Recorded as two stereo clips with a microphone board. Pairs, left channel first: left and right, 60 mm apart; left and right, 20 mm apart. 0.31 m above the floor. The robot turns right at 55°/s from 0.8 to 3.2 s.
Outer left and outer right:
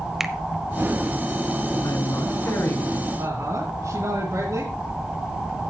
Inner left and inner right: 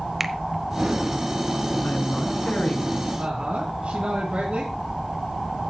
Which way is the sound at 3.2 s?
65° right (ahead or behind).